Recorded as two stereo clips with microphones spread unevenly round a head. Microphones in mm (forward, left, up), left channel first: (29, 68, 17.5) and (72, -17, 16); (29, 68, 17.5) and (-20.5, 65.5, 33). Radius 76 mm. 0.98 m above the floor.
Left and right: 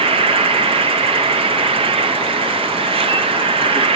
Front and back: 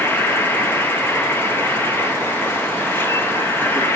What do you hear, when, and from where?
0.0 s an insect: 45° right, 0.7 m